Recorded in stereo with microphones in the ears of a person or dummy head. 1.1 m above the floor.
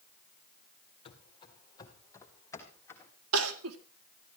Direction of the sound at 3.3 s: 85° right.